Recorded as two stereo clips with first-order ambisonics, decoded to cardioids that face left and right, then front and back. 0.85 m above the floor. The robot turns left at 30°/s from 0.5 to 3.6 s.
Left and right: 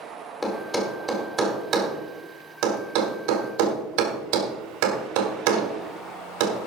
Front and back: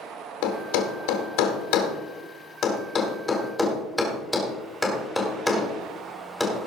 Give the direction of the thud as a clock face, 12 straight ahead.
12 o'clock.